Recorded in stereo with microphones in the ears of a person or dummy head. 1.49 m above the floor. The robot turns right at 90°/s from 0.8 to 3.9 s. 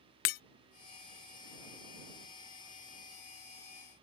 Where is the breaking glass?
45° left (ahead or behind).